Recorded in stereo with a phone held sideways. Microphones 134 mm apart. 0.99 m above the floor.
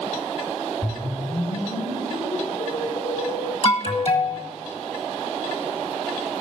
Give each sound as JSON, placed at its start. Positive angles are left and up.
{"t": 0.8, "sound": "a whoosh", "side_deg": 65, "distance_m": 3.5}
{"t": 3.6, "sound": "an alarm", "side_deg": 50, "distance_m": 1.6}